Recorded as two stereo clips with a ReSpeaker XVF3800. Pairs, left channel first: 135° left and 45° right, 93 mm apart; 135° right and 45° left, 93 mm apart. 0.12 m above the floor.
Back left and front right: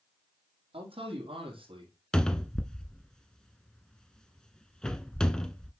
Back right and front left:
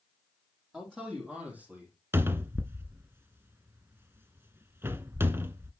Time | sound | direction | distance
0.7 | a man speaking | 35° right | 4.5 m
2.1 | a cupboard door | 65° left | 0.7 m